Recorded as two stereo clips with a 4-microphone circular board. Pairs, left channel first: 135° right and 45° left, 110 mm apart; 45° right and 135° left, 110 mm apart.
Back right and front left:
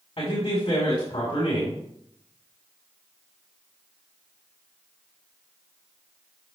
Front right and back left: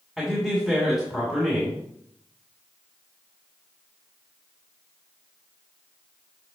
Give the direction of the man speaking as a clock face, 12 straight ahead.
5 o'clock.